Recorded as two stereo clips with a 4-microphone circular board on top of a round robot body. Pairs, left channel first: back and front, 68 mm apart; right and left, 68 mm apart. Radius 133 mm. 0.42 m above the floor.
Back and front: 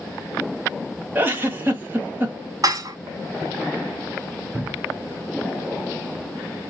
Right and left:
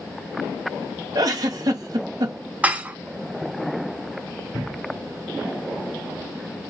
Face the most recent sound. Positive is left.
turn(degrees=-10)